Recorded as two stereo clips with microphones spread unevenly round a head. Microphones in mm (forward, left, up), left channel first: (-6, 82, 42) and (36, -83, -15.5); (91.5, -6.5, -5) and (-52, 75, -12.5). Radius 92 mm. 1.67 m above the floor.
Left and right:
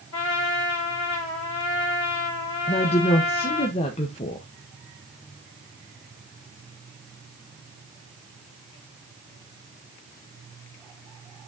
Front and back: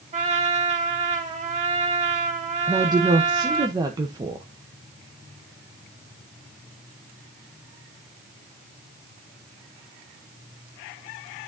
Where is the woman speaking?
90° left, 0.8 m.